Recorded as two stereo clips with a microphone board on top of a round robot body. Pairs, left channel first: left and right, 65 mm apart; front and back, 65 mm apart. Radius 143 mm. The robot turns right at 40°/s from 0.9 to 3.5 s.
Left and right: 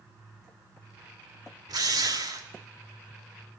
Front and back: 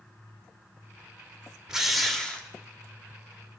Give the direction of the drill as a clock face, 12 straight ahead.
3 o'clock.